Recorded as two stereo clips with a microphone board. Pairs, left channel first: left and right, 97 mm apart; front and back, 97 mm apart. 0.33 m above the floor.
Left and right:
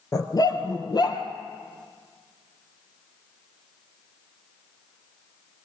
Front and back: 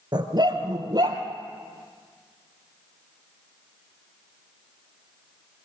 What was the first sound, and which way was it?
A dog barking, 140° left.